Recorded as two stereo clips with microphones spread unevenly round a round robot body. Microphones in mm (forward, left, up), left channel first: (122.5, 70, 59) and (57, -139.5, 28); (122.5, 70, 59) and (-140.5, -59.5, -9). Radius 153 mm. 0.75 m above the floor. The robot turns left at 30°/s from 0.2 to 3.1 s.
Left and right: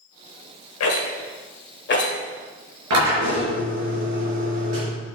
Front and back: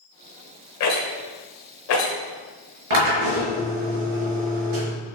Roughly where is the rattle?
Left.